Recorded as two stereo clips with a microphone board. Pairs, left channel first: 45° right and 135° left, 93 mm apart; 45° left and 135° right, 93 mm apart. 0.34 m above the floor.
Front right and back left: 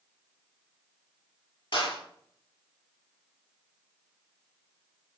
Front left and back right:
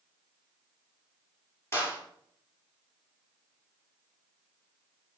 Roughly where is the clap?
Ahead.